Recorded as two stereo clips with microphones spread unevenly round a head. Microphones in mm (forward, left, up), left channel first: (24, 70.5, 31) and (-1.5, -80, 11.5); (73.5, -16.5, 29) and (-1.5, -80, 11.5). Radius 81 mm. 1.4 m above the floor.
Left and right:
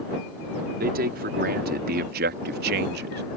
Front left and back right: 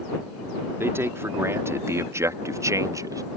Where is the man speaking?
75° right; by 3.2 s 85° right.